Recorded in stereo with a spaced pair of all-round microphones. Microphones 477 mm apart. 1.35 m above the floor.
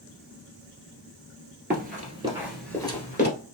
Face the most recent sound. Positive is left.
turn(degrees=20)  # may be behind; listen again after turning